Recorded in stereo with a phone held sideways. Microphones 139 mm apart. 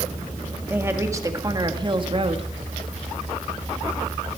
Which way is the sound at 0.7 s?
15° right (ahead or behind).